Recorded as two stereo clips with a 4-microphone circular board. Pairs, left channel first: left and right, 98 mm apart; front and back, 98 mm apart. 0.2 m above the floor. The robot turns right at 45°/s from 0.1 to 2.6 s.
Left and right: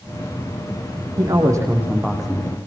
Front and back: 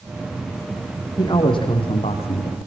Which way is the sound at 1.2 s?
50° right.